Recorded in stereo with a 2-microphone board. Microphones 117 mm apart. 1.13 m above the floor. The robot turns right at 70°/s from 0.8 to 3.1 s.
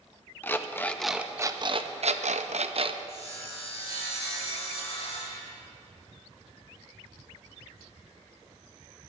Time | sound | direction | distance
0.4 | an alarm clock | 160° left | 0.6 m
3.1 | sawing | 55° left (ahead or behind) | 4 m